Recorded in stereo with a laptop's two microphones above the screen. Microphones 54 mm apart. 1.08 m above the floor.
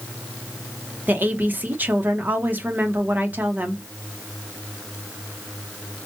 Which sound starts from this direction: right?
A woman speaking, at 1.1 s.